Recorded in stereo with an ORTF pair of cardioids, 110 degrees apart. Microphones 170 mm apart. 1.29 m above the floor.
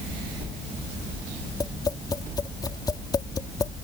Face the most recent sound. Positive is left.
turn(degrees=20)